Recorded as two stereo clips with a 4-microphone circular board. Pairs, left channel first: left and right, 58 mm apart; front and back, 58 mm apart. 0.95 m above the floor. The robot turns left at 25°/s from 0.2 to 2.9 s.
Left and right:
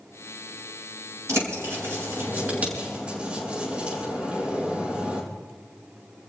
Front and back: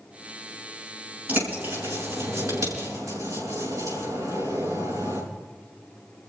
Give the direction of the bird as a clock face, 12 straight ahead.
4 o'clock.